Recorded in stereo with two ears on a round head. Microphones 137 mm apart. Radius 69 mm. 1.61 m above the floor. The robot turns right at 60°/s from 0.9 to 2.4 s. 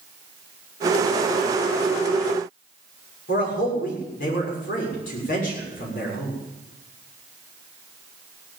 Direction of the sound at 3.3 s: 60° left (ahead or behind).